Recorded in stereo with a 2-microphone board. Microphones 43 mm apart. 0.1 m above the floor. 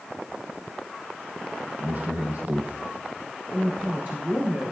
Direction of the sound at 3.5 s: 40° right (ahead or behind).